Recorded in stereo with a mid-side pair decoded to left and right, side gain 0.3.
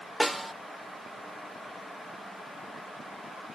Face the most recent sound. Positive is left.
turn(degrees=-15)